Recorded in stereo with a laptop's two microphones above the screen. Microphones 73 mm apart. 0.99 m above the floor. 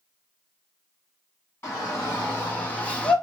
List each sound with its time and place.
1.6 s a shout: 35° left (ahead or behind), 1.5 m; by 3.1 s 15° left (ahead or behind), 0.6 m